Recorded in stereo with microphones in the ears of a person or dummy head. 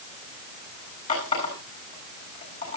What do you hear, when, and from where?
1.1 s a running tap: 40° left (ahead or behind), 8 m